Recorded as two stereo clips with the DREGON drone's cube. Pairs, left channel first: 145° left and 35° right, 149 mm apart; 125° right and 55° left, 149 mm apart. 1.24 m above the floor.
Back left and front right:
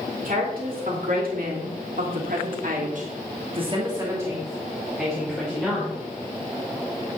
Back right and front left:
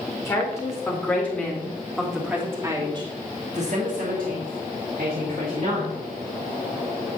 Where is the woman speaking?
55° right, 3 m; by 6.0 s 70° left, 2.5 m.